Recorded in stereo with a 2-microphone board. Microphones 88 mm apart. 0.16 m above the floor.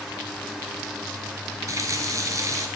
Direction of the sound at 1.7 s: 40° right (ahead or behind).